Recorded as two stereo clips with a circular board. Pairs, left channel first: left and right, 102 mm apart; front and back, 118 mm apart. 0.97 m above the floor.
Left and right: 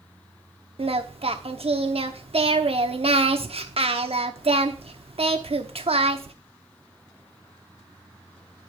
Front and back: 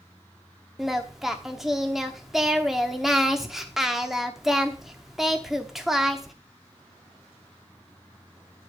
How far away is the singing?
About 0.9 m.